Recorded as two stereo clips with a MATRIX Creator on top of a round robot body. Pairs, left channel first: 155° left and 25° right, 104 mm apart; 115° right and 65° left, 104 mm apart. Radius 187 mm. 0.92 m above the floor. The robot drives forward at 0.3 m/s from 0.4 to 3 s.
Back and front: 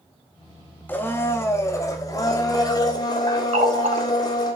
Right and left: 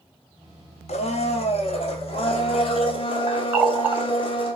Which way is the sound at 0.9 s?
130° right.